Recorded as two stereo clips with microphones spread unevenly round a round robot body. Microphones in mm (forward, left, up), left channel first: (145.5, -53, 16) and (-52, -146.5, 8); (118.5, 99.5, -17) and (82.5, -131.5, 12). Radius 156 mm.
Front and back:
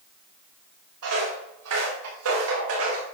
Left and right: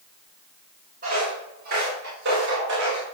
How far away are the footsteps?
About 6 m.